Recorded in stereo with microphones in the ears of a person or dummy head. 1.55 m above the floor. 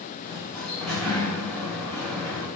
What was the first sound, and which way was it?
A sliding door, 10° left (ahead or behind).